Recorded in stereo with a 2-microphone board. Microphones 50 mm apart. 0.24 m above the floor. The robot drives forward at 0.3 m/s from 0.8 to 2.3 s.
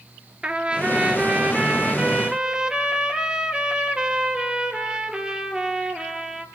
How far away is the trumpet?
About 1.2 m.